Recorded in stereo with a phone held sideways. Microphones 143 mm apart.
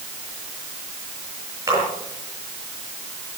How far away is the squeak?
I don't hear a squeak.